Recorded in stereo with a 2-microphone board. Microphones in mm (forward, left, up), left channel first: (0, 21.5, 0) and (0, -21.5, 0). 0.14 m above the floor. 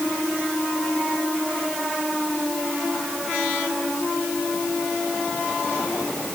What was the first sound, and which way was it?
Only background noise.